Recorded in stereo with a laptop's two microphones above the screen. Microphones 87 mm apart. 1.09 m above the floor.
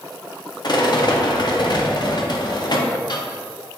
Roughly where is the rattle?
Left.